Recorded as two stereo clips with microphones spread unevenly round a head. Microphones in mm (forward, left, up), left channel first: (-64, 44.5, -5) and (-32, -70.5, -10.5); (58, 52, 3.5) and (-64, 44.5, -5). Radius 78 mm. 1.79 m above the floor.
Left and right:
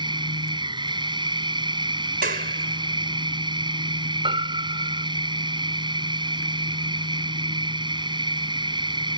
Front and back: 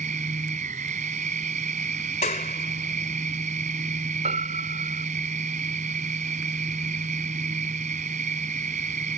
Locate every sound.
0.0 s a machine running: 125° right
2.2 s a clap: 45° right
4.2 s a piano: 120° right